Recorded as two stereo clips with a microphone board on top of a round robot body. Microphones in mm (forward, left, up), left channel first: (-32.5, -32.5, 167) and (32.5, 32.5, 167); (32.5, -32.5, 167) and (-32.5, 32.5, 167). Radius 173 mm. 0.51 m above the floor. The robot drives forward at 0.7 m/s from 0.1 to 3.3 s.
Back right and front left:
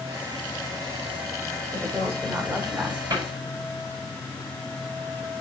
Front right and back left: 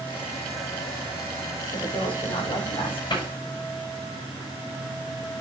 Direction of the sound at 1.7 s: 30° right.